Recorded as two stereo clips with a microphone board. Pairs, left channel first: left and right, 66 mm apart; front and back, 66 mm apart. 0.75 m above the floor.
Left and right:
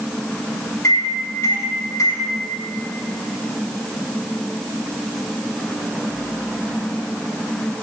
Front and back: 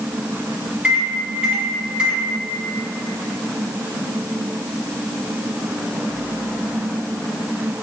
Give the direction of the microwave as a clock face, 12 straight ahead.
8 o'clock.